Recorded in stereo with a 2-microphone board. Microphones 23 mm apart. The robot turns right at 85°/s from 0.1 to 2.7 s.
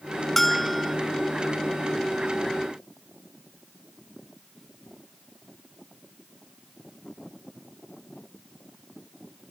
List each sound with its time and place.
0.4 s a bell: 10° left (ahead or behind), 0.6 m; by 1.0 s 10° right (ahead or behind), 0.6 m